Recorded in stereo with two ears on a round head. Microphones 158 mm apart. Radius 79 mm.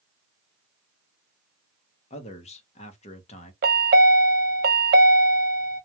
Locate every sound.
2.1 s a man speaking: 35° left (ahead or behind), 0.8 m
3.6 s a chime: 60° right (ahead or behind), 0.6 m